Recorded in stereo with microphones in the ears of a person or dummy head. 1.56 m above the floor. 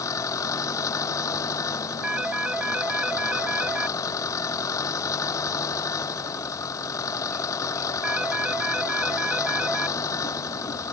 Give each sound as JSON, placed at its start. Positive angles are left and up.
{"t": 0.0, "sound": "an engine running", "side_deg": 20}
{"t": 2.0, "sound": "a phone ringing", "side_deg": -5}